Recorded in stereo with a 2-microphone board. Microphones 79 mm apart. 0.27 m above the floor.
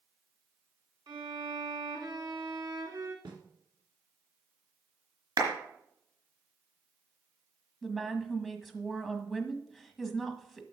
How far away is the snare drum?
About 1.9 m.